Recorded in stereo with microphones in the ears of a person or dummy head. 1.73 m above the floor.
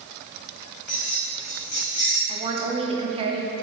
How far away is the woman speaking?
About 0.7 m.